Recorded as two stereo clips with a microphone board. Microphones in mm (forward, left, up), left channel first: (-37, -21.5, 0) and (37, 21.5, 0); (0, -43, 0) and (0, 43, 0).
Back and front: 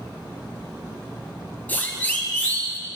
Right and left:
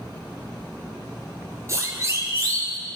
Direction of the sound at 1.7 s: 140° left.